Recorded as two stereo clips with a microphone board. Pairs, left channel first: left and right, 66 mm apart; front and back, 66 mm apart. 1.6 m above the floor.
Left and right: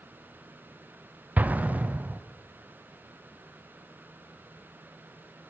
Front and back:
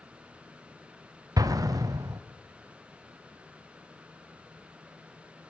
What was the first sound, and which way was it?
An explosion, 155° right.